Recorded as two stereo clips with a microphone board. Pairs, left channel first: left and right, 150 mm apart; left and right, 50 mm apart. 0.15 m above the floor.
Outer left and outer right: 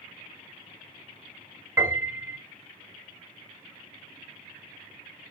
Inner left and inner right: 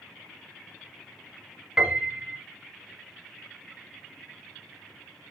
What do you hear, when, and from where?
1.8 s a piano: 15° right (ahead or behind), 0.8 m